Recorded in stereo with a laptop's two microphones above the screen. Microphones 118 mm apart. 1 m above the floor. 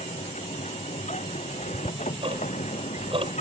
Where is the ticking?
55° right (ahead or behind).